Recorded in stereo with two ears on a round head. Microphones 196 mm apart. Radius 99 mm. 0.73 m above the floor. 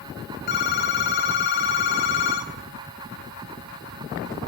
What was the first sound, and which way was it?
A phone ringing, 45° left (ahead or behind).